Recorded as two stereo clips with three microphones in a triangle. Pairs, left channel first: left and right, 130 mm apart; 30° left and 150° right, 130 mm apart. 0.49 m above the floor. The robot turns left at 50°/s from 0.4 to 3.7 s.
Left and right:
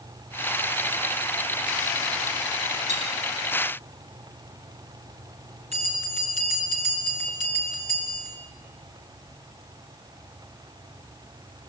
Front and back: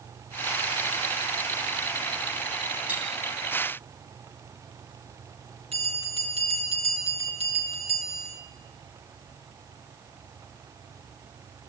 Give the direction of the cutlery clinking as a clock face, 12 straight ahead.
2 o'clock.